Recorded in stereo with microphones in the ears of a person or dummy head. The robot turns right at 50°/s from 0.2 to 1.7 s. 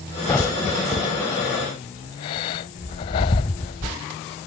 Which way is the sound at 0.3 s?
5° left (ahead or behind).